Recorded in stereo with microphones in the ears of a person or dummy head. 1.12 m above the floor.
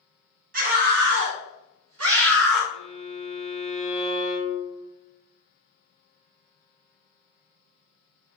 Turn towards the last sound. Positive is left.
turn(degrees=-30)  # may be behind; listen again after turning